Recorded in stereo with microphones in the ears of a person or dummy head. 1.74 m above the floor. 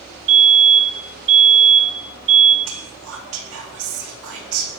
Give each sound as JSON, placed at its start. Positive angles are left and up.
{"t": 0.3, "sound": "a fire alarm", "side_deg": -35, "distance_m": 5.5}
{"t": 2.6, "sound": "whispering", "side_deg": -85, "distance_m": 4.0}